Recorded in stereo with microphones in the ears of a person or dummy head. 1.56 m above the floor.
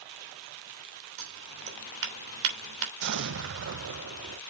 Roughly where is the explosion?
Right.